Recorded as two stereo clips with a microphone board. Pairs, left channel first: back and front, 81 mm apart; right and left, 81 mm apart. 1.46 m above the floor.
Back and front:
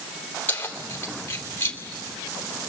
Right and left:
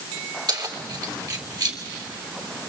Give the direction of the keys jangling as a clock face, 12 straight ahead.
8 o'clock.